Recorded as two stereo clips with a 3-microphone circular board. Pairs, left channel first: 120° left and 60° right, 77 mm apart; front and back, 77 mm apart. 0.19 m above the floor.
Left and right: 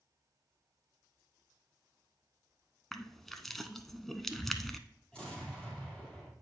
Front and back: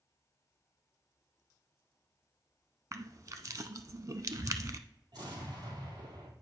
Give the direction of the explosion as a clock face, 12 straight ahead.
5 o'clock.